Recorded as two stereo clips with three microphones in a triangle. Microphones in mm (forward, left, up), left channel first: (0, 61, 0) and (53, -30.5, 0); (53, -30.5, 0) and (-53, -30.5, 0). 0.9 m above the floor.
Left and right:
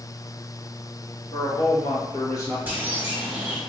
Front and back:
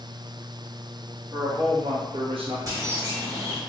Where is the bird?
130° right, 1.1 m.